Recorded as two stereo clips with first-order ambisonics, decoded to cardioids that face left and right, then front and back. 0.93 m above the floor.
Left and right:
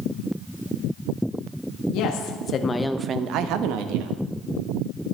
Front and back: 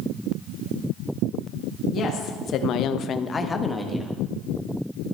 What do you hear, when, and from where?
1.9 s a woman speaking: 60° left, 1.4 m; by 4.2 s 90° right, 1.7 m